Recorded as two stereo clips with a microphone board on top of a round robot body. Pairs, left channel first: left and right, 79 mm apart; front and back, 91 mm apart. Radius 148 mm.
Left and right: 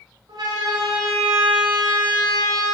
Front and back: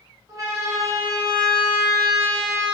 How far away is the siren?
About 6.5 m.